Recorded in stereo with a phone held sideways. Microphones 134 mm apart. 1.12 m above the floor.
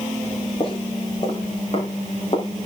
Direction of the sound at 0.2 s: 40° left (ahead or behind).